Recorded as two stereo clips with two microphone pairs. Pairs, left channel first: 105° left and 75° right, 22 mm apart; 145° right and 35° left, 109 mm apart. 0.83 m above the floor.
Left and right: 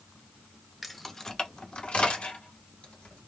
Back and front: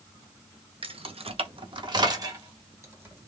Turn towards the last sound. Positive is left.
turn(degrees=100)